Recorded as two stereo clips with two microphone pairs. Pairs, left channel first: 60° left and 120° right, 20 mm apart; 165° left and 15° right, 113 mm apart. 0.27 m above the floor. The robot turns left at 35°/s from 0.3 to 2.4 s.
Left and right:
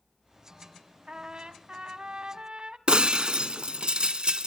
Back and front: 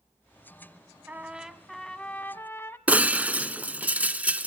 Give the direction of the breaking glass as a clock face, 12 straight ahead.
3 o'clock.